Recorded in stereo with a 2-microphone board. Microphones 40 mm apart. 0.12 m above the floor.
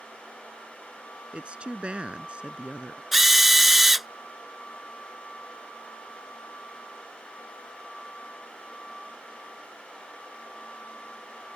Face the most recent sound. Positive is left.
turn(degrees=-5)  # may be behind; listen again after turning